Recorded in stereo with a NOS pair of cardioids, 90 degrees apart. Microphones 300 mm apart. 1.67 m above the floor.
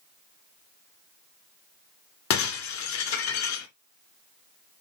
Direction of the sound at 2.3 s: 70° left.